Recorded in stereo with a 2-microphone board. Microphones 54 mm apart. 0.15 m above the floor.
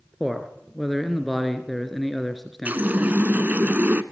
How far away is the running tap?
About 1.0 m.